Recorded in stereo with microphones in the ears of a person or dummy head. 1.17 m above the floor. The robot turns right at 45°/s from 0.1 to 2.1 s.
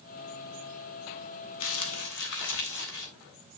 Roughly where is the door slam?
No door slam in this recording.